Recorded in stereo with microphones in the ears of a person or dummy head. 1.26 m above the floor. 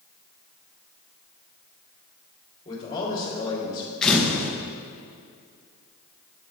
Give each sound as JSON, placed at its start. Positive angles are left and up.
{"t": 2.6, "sound": "a man speaking", "side_deg": 25, "distance_m": 3.0}
{"t": 4.0, "sound": "a camera shutter", "side_deg": 5, "distance_m": 1.1}